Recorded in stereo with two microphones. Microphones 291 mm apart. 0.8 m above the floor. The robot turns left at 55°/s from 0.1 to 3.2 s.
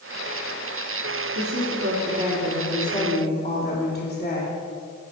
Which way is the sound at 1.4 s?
100° right.